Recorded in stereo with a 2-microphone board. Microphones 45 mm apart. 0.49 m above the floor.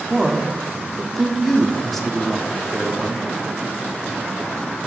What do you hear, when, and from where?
0.1 s a man speaking: 5° left (ahead or behind), 0.7 m